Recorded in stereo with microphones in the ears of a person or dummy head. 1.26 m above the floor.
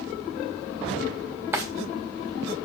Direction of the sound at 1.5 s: 10° right (ahead or behind).